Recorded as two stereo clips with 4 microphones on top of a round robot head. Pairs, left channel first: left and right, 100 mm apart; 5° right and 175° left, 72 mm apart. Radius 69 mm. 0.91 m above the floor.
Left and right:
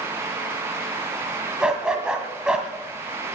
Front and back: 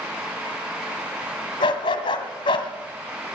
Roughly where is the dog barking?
Ahead.